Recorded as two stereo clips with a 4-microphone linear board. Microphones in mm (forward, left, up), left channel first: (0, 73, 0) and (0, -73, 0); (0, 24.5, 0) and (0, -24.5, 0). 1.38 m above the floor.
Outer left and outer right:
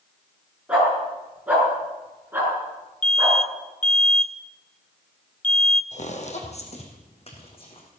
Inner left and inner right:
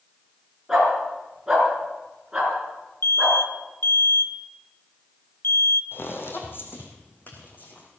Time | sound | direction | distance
0.7 | a dog barking | 10° right (ahead or behind) | 6.5 m
3.0 | an alarm | 55° left (ahead or behind) | 0.8 m
5.9 | footsteps | 55° left (ahead or behind) | 2.5 m